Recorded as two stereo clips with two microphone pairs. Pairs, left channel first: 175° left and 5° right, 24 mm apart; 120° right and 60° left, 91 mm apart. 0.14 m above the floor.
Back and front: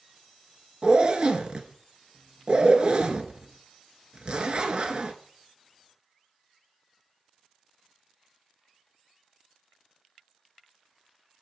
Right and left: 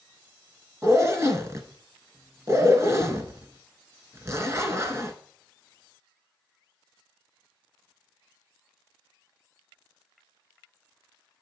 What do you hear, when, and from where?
0.8 s a zipper: 15° left, 0.8 m